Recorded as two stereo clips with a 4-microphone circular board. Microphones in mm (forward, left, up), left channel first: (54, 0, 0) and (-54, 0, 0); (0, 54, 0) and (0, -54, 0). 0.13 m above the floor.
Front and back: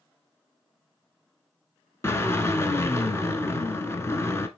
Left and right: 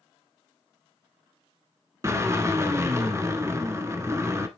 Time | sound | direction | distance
2.0 | a drill | 45° right | 0.9 m